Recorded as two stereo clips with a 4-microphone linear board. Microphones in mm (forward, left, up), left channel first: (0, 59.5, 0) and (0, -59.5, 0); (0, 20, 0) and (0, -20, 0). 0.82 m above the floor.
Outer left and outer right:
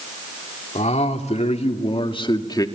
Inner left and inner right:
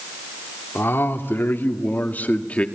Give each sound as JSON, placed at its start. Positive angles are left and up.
{"t": 0.8, "sound": "a man speaking", "side_deg": 70, "distance_m": 2.5}